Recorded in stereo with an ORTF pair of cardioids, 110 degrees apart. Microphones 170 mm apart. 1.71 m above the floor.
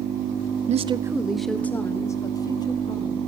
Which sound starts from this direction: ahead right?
A woman speaking, at 0.7 s.